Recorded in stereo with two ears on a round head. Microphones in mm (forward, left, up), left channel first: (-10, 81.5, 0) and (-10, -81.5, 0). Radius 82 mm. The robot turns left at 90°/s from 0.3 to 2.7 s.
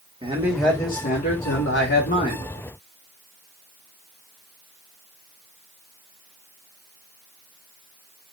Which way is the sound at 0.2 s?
155° right.